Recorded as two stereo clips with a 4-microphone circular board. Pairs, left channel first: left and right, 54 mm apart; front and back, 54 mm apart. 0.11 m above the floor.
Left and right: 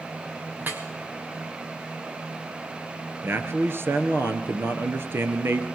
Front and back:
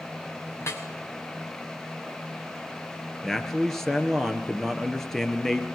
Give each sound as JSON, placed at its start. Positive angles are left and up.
{"t": 0.6, "sound": "dripping", "azimuth_deg": -35, "distance_m": 2.5}
{"t": 3.2, "sound": "a man speaking", "azimuth_deg": -80, "distance_m": 2.0}